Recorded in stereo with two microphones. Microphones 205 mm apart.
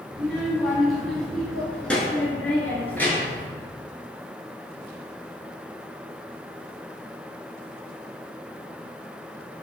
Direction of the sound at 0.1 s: Centre (ahead or behind).